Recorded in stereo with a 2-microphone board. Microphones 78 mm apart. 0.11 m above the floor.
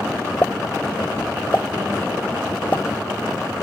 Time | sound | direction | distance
0.4 | a pop | 25° left (ahead or behind) | ?